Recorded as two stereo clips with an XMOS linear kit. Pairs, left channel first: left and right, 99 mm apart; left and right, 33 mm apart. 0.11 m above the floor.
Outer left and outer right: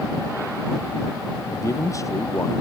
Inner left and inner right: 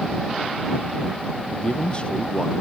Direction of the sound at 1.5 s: 30° left (ahead or behind).